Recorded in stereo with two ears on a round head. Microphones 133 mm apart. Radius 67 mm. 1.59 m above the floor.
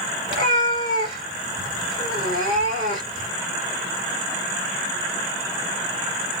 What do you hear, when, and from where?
0.3 s a cat meowing: 30° left (ahead or behind), 2 m